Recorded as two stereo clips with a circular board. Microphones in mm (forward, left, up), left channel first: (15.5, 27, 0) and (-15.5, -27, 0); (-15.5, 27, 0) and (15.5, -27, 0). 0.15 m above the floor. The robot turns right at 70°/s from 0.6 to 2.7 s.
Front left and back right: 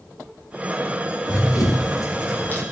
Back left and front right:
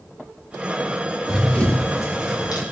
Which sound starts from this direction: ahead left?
Running footsteps, at 1.3 s.